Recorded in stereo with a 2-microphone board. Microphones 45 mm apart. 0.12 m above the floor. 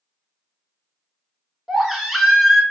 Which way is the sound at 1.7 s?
Centre (ahead or behind).